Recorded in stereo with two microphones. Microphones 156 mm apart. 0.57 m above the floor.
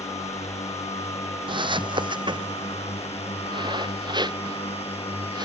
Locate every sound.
0.0 s a drone: 45° left (ahead or behind); by 5.5 s 40° left (ahead or behind)
1.5 s footsteps: 30° right (ahead or behind)